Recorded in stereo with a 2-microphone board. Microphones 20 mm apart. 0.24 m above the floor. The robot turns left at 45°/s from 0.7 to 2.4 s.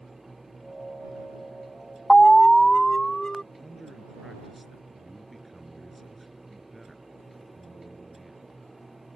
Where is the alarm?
30° left (ahead or behind); by 3.4 s 25° left (ahead or behind).